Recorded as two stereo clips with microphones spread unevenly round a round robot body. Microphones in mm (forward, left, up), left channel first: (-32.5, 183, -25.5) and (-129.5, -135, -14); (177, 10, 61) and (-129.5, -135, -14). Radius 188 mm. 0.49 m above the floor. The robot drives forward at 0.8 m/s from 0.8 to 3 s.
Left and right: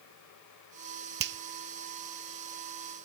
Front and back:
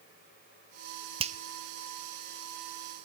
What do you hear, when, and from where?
1.2 s a finger snap: 125° right, 0.6 m; by 1.4 s 145° right, 0.6 m